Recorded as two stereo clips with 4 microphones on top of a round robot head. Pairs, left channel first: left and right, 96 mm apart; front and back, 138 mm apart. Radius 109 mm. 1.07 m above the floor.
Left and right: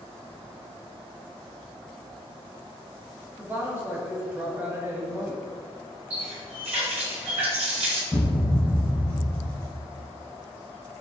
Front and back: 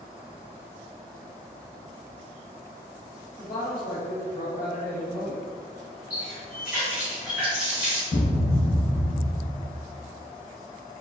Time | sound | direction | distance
3.4 | a woman speaking | 20° right | 1.2 m
6.1 | a running tap | 95° right | 1.5 m
8.1 | a thud | 15° left | 0.5 m